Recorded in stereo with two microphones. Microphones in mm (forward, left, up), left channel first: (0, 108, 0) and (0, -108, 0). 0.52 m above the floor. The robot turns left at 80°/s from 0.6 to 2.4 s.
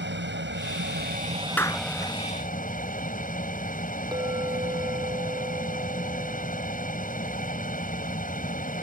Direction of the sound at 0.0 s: 85° right.